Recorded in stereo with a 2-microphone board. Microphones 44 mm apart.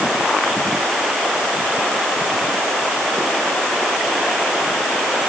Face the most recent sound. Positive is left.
No sound to turn to.